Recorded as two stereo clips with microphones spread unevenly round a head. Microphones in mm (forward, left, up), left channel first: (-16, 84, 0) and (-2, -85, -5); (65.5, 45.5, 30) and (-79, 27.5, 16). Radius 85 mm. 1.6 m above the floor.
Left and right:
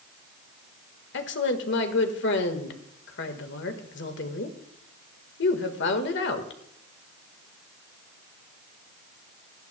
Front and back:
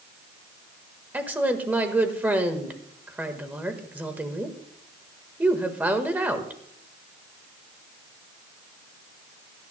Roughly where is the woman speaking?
Left.